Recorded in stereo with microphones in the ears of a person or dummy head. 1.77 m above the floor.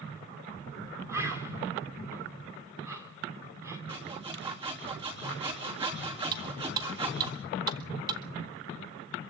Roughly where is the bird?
Centre.